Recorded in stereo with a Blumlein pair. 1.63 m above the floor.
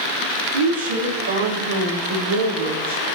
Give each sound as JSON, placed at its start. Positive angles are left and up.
{"t": 0.5, "sound": "a woman speaking", "azimuth_deg": -70, "distance_m": 4.0}